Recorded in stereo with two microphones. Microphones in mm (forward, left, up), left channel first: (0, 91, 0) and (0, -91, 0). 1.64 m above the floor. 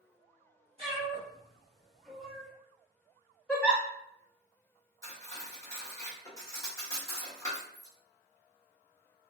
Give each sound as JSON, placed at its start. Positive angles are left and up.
{"t": 0.8, "sound": "a cat meowing", "side_deg": -35, "distance_m": 1.7}
{"t": 3.5, "sound": "a giggle", "side_deg": 5, "distance_m": 0.9}
{"t": 5.0, "sound": "cutlery clinking", "side_deg": 20, "distance_m": 1.0}